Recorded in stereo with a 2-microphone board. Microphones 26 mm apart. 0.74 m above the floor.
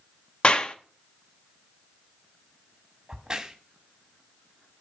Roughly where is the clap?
Left.